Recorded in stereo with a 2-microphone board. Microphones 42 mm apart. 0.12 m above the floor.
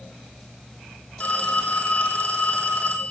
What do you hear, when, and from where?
1.2 s a phone ringing: 35° left (ahead or behind), 2.5 m